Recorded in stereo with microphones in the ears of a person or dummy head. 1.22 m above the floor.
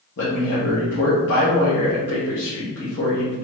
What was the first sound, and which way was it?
A man speaking, 60° left (ahead or behind).